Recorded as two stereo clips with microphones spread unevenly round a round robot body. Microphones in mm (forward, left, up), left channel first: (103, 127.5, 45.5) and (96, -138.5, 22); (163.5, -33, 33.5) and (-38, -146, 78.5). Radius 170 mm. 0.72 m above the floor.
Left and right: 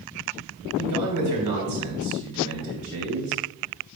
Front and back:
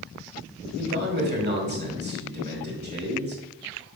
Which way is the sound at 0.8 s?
100° right.